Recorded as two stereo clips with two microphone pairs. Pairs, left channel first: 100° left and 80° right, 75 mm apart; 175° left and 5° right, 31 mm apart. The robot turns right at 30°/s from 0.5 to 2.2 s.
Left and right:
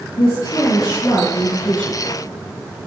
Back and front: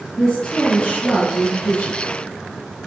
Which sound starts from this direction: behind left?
A woman speaking, at 0.2 s.